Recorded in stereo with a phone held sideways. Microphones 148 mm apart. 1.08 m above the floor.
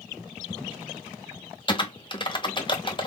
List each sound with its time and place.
1.7 s typing on a keyboard: 30° left (ahead or behind), 0.8 m